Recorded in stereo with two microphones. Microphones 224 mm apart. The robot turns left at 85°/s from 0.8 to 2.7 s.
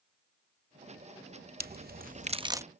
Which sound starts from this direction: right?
A crack, at 1.6 s.